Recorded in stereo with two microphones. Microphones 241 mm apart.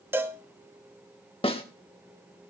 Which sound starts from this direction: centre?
A cowbell, at 0.1 s.